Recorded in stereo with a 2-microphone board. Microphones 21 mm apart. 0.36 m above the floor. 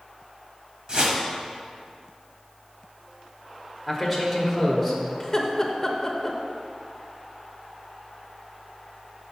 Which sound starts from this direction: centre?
A man speaking, at 3.9 s.